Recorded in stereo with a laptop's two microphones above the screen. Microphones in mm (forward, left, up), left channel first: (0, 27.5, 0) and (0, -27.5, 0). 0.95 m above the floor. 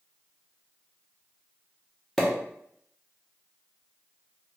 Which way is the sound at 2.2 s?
5° left (ahead or behind).